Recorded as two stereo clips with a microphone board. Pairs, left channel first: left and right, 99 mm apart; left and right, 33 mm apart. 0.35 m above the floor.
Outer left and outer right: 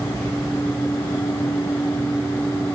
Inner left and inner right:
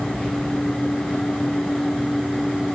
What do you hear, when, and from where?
0.1 s whispering: 30° left (ahead or behind), 3.5 m